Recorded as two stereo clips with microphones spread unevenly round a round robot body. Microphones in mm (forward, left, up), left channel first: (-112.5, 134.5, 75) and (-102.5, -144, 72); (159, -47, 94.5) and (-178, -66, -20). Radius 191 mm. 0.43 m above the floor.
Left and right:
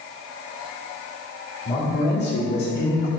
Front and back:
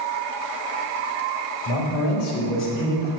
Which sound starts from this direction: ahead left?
A man speaking, at 1.6 s.